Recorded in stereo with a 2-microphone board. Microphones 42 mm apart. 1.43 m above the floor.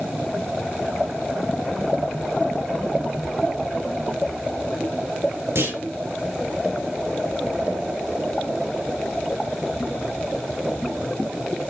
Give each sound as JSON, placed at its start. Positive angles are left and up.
{"t": 5.5, "sound": "a clunk", "side_deg": -85, "distance_m": 9.0}